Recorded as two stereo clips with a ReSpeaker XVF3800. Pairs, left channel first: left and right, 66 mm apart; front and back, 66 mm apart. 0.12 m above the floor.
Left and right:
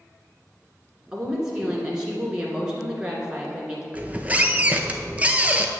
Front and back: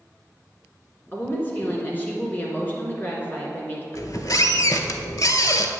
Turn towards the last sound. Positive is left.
turn(degrees=-25)